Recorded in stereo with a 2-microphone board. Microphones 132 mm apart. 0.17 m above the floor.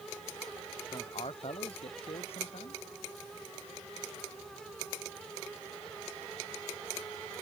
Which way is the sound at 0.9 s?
45° left (ahead or behind).